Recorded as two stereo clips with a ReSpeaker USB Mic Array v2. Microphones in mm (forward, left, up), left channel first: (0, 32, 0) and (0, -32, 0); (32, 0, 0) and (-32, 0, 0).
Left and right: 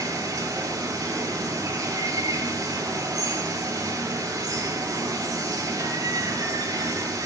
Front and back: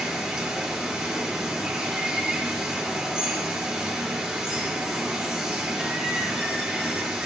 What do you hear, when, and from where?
0.0 s running water: 100° right, 3.5 m